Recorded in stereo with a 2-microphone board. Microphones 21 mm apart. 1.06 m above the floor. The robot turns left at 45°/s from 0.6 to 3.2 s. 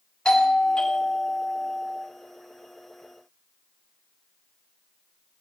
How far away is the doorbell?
About 1.7 m.